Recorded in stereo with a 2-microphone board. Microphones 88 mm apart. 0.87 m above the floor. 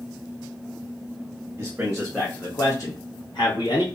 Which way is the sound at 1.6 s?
25° right (ahead or behind).